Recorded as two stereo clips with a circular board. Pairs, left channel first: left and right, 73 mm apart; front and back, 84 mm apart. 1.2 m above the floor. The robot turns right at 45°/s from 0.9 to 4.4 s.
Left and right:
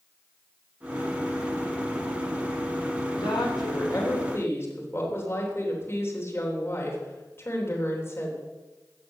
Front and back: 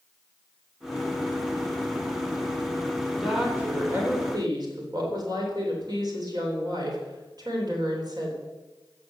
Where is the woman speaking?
90° left, 3.5 m; by 8.3 s 145° left, 3.5 m.